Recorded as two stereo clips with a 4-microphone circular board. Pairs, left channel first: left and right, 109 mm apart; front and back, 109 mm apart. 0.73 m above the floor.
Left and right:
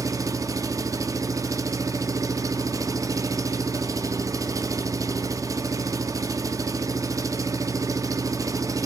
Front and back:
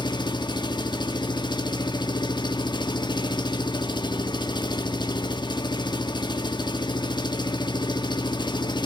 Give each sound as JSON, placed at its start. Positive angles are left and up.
{"t": 0.0, "sound": "an engine running", "azimuth_deg": -35, "distance_m": 1.3}